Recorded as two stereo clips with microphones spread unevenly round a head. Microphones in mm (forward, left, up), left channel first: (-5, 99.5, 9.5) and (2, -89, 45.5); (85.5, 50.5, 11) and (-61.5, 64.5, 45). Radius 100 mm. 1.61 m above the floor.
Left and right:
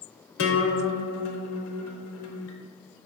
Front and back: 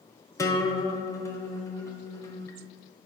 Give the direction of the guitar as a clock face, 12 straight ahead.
10 o'clock.